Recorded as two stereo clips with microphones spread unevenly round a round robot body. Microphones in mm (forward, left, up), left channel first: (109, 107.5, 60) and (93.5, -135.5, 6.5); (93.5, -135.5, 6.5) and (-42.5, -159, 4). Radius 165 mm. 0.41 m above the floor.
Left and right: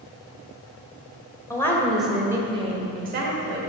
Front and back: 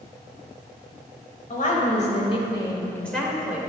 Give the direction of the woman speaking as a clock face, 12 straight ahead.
12 o'clock.